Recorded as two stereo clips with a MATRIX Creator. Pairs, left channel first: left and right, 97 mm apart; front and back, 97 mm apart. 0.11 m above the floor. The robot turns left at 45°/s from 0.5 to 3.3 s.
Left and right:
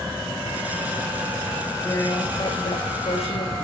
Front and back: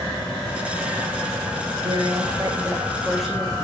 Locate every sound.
1.8 s a woman speaking: 155° left, 8 m; by 3.5 s 90° left, 8 m